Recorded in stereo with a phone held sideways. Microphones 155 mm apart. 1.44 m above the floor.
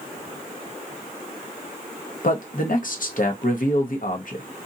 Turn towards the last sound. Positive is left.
turn(degrees=60)  # may be behind; listen again after turning